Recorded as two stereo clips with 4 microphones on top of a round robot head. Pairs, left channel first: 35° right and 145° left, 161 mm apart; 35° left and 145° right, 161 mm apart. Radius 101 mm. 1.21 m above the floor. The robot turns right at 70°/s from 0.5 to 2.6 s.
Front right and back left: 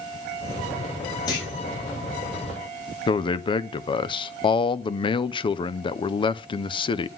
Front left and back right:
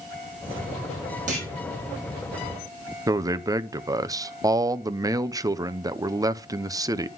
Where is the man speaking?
85° right, 0.5 m.